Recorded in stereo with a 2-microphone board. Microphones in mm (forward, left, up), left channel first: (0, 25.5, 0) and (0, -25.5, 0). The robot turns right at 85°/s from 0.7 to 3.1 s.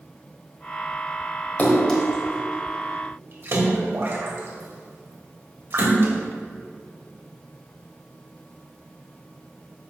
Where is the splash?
30° left (ahead or behind), 1.8 m; by 6.1 s 55° right (ahead or behind), 1.8 m.